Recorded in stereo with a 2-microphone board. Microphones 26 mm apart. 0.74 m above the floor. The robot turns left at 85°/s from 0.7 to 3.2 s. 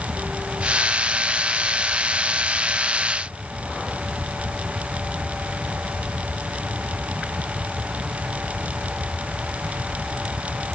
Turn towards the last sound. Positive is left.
No sound to turn to.